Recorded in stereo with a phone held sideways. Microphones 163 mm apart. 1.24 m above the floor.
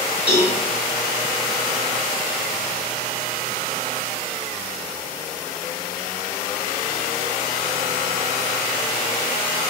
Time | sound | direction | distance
0.3 | a cowbell | 10° right (ahead or behind) | 1.4 m